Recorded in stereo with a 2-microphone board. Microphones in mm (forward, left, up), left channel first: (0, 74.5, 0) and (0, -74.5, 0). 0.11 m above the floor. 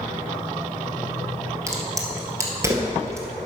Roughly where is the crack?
Centre.